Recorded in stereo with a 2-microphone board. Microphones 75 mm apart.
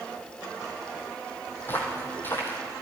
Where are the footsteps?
25° left (ahead or behind), 2 m.